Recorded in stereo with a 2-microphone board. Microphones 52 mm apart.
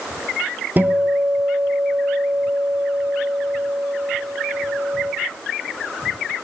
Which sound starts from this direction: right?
A guitar, at 0.8 s.